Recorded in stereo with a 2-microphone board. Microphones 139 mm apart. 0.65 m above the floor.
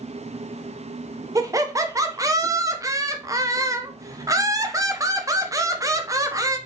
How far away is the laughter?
About 0.5 m.